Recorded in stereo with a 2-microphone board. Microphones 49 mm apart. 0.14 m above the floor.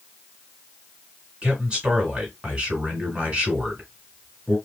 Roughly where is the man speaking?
Right.